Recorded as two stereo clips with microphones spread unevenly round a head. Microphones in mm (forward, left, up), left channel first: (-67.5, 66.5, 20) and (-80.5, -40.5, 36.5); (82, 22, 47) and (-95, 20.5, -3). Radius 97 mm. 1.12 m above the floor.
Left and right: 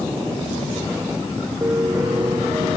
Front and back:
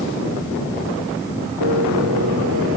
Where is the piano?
160° right.